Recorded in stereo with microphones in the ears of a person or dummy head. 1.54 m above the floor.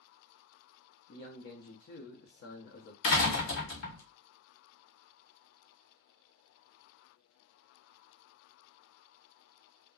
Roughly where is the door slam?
Left.